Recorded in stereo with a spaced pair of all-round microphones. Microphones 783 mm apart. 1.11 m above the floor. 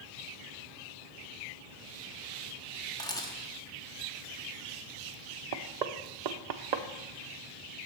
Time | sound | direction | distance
3.0 | a camera shutter | 5° left (ahead or behind) | 1.1 m
5.5 | knocking | 60° right (ahead or behind) | 0.6 m